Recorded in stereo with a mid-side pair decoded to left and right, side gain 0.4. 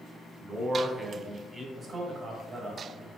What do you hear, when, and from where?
0.4 s a man speaking: 25° right, 1.0 m
1.8 s a man speaking: 55° right, 1.5 m